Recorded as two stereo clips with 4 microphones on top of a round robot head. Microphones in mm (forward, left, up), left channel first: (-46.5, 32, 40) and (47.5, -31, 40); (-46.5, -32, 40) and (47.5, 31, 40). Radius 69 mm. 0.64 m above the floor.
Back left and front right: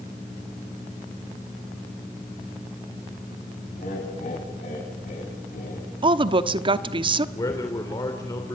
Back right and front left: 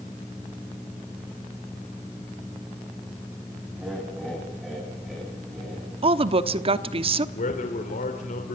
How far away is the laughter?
About 5 m.